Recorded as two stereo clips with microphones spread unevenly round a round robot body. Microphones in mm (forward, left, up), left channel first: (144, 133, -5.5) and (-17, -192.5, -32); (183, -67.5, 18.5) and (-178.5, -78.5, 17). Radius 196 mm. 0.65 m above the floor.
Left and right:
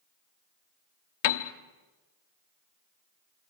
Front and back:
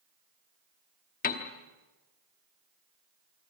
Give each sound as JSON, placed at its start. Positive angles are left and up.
{"t": 1.2, "sound": "a piano", "azimuth_deg": 70, "distance_m": 1.1}